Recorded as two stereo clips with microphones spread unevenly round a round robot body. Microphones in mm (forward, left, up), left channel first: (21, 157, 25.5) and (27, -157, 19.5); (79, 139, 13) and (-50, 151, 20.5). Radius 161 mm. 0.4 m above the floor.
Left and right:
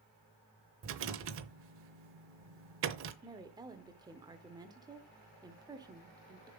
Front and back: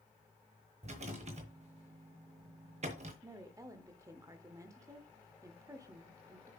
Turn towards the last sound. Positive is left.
turn(degrees=-145)